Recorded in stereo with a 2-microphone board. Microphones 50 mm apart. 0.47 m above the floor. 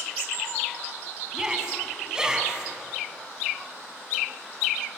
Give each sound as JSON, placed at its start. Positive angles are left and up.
{"t": 1.3, "sound": "a shout", "side_deg": -15, "distance_m": 4.5}